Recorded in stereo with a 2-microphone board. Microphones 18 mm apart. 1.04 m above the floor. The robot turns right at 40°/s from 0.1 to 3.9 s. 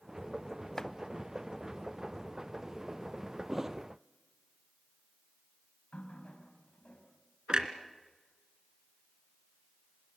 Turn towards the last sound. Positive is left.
turn(degrees=-45)  # may be behind; listen again after turning